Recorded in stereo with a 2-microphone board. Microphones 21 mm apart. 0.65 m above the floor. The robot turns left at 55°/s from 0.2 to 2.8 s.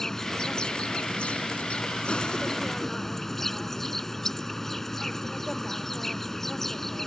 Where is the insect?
155° left; by 7.1 s 10° left.